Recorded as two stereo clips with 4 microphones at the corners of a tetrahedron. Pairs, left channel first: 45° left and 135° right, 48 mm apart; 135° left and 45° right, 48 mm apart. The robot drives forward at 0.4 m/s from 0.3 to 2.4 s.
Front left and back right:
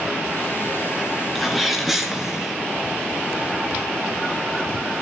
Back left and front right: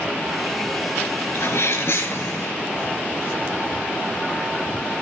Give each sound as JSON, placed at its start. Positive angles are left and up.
{"t": 1.4, "sound": "a sneeze", "azimuth_deg": 135, "distance_m": 2.5}